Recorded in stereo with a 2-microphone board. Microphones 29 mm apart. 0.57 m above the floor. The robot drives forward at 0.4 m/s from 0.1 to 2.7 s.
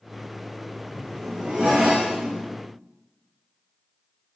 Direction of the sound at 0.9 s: 30° right (ahead or behind).